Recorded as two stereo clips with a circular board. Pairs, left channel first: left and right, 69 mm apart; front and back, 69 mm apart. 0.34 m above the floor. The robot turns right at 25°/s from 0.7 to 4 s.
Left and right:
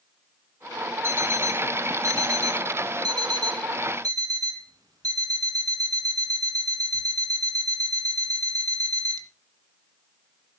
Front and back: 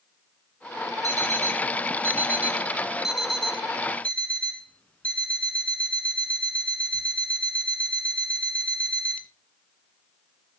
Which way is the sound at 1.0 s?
145° right.